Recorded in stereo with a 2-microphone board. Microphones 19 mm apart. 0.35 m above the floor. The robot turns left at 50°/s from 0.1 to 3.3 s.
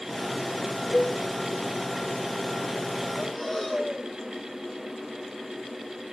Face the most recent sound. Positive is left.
turn(degrees=15)  # may be behind; listen again after turning